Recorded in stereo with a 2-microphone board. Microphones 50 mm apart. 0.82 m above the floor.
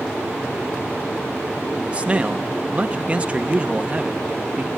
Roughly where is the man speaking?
Right.